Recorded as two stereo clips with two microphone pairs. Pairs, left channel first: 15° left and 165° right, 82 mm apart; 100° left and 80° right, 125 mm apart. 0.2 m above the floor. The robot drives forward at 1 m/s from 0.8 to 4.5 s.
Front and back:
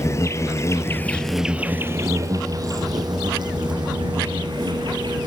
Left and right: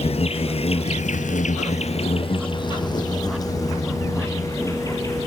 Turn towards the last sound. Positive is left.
turn(degrees=165)